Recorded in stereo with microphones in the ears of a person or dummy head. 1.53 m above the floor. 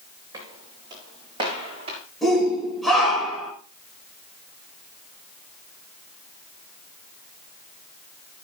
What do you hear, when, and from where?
0.3 s footsteps: 25° right (ahead or behind), 5.5 m; by 2.0 s 35° right (ahead or behind), 5 m
2.2 s a shout: 5° right (ahead or behind), 5.5 m